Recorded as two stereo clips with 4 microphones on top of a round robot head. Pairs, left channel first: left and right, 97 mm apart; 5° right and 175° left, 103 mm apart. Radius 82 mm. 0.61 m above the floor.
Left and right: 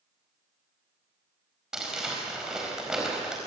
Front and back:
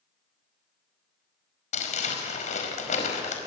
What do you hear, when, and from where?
1.7 s crumpling: 5° right, 4.5 m